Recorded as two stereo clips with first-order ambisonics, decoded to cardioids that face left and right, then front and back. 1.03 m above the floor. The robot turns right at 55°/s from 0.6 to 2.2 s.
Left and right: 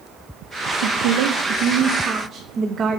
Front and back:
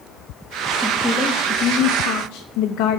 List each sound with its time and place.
0.8 s a woman speaking: 100° right, 0.6 m; by 3.0 s 20° right, 0.6 m